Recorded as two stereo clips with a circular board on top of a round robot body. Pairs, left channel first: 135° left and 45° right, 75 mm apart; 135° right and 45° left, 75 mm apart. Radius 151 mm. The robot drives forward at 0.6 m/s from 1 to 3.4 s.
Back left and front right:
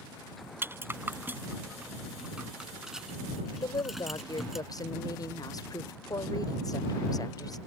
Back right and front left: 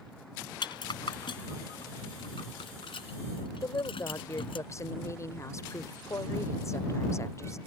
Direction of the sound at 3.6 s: 175° left.